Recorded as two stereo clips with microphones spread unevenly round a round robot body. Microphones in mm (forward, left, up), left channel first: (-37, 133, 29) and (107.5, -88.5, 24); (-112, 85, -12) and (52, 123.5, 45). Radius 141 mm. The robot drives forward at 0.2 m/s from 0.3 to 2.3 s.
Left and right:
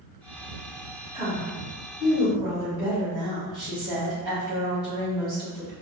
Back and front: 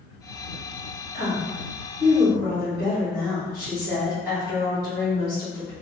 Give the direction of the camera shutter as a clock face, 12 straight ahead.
No camera shutter in this recording.